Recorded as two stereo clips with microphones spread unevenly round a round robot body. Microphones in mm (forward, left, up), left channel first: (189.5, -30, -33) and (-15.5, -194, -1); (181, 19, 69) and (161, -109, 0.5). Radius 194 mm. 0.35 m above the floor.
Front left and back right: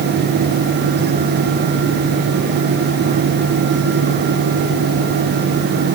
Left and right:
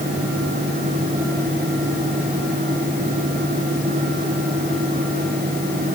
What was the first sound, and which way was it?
Only background noise.